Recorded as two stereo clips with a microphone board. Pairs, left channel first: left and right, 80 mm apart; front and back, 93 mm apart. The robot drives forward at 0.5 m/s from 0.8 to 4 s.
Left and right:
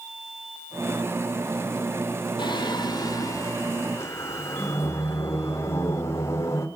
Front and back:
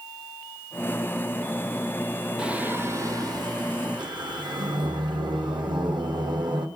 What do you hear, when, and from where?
2.4 s singing: 100° left, 0.6 m; by 6.7 s 145° left, 1.1 m